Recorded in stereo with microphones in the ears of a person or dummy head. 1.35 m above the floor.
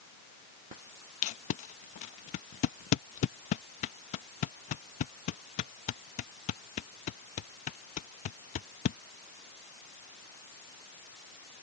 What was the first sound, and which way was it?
Tape being pulled, 30° left (ahead or behind).